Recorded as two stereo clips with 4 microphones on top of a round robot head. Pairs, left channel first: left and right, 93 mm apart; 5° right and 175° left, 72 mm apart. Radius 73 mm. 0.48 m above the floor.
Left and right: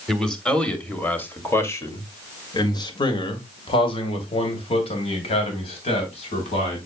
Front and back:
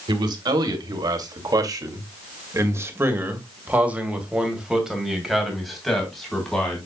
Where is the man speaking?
175° left, 2.5 m; by 6.9 s 80° left, 3.5 m.